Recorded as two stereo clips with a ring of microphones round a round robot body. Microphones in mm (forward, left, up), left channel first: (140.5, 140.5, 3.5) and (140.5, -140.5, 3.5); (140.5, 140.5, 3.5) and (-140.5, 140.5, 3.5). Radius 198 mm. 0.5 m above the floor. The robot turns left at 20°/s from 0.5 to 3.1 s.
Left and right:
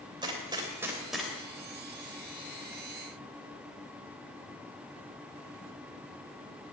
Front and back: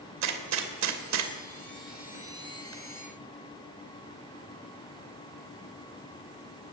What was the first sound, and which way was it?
A gunshot, 165° right.